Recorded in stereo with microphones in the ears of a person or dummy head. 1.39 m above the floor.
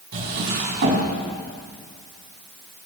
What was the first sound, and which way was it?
A drawer, 55° right (ahead or behind).